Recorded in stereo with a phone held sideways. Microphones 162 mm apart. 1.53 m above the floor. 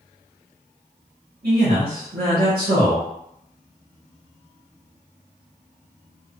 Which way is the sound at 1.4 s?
65° right (ahead or behind).